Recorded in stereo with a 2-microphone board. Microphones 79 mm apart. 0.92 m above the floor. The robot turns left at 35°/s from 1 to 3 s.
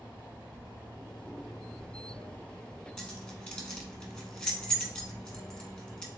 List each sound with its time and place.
0.0 s running water: 160° right, 1.6 m; by 6.2 s 130° left, 1.6 m
3.0 s keys jangling: 10° left (ahead or behind), 1.2 m